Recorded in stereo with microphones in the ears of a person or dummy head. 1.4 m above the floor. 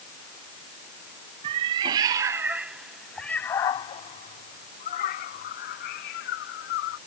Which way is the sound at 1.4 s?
30° right (ahead or behind).